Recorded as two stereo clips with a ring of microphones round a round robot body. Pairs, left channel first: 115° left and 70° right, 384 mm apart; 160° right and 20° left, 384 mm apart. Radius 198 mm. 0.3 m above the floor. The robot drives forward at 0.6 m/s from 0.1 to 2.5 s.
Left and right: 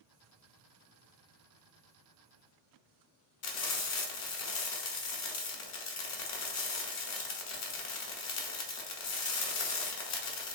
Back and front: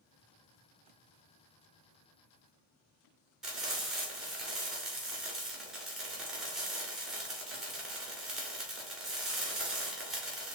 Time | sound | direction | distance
3.4 | frying | 110° left | 0.9 m